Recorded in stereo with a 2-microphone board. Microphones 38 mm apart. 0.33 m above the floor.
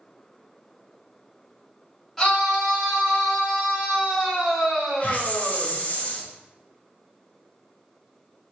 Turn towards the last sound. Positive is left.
turn(degrees=40)  # may be behind; listen again after turning